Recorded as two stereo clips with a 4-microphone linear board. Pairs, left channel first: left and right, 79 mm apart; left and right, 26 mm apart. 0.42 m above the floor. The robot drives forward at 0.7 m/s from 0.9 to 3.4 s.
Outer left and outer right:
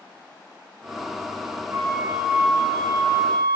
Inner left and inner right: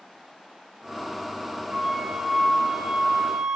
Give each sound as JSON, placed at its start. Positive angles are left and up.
{"t": 1.7, "sound": "a flute", "side_deg": -30, "distance_m": 1.1}